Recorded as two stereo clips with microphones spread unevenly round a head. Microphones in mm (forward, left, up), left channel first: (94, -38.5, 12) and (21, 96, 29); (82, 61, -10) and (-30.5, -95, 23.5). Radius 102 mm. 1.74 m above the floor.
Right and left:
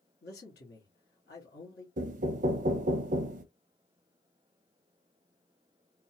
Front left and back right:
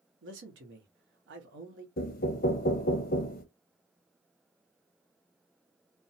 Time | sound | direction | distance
0.2 | a man speaking | 110° right | 1.1 m
2.0 | knocking | 105° left | 0.5 m